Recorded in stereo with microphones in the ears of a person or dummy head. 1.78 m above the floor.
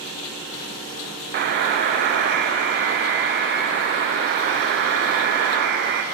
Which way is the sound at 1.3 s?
55° right (ahead or behind).